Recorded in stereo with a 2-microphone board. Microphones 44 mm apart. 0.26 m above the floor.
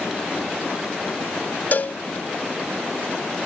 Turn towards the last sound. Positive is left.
turn(degrees=45)  # may be behind; listen again after turning